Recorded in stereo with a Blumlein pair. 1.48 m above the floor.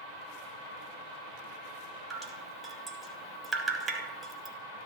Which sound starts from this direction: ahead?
Dripping, at 2.1 s.